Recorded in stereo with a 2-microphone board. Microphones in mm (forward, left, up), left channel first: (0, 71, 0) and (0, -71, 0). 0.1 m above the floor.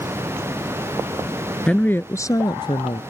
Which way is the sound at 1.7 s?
5° left (ahead or behind).